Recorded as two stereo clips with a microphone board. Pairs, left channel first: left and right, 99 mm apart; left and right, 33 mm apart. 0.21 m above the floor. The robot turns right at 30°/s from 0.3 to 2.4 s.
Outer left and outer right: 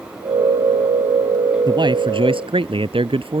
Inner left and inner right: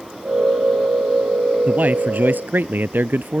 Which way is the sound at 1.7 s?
50° right (ahead or behind).